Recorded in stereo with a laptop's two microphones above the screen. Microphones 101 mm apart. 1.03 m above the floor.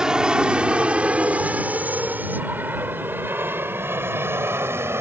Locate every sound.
0.0 s an aircraft: 5° right (ahead or behind); by 5.0 s 25° right (ahead or behind)